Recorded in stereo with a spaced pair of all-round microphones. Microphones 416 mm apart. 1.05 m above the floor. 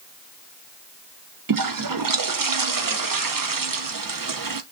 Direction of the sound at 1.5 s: 55° right (ahead or behind).